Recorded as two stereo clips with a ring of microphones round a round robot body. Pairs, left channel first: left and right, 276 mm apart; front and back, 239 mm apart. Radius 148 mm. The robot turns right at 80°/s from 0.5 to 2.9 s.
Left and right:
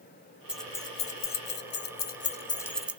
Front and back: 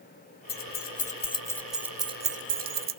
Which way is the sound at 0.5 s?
5° right.